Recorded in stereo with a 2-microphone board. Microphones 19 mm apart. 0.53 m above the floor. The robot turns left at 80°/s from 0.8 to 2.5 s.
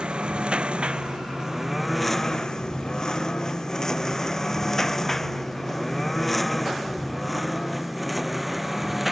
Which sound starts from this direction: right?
A lawn mower, at 0.0 s.